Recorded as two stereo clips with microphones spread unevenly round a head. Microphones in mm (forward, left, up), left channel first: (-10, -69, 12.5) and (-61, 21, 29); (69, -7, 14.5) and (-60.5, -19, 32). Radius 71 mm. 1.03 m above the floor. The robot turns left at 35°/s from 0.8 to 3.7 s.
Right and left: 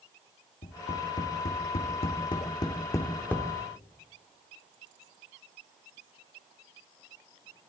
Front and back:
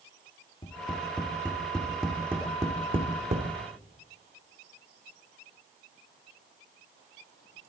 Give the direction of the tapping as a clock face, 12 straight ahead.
2 o'clock.